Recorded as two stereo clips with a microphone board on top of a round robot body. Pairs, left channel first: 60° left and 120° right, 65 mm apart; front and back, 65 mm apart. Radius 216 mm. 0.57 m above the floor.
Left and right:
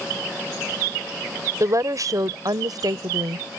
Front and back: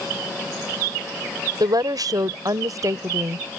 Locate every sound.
1.6 s a woman speaking: 160° right; by 3.5 s 140° right